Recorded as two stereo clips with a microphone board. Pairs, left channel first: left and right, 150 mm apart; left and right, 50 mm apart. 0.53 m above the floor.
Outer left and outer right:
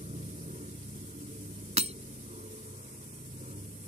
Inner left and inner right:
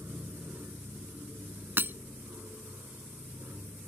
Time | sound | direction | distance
0.0 | an aircraft | 50° right (ahead or behind) | ?
1.8 | breaking glass | 45° right (ahead or behind) | ?